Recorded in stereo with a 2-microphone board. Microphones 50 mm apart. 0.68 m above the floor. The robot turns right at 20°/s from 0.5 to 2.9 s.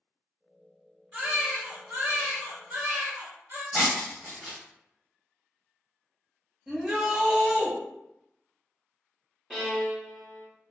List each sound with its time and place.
1.1 s a baby crying: 150° right, 0.8 m; by 3.6 s 115° right, 0.8 m
3.7 s breaking glass: 25° right (ahead or behind), 1.4 m
6.7 s a shout: 15° right (ahead or behind), 0.9 m
9.5 s a violin: 5° left (ahead or behind), 0.7 m